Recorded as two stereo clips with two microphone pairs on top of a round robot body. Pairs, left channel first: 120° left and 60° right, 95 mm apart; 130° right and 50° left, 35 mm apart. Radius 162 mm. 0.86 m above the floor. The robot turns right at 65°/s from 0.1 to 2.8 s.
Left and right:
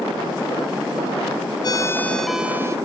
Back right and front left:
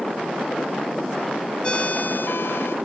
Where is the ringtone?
170° left; by 2.8 s 120° right.